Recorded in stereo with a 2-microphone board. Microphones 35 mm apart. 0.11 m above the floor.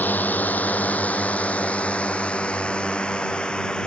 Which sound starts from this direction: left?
A drone, at 0.0 s.